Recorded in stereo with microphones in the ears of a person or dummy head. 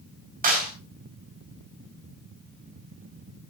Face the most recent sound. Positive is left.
turn(degrees=-40)  # may be behind; listen again after turning